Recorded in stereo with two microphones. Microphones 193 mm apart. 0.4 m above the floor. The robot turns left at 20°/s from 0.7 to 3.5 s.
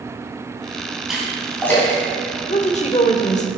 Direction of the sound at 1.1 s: Centre (ahead or behind).